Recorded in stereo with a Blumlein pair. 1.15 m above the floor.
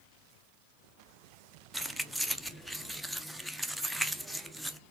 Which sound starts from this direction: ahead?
Keys jangling, at 1.7 s.